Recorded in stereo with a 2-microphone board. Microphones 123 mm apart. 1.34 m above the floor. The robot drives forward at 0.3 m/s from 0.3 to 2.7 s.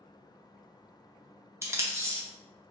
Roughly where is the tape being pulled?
Centre.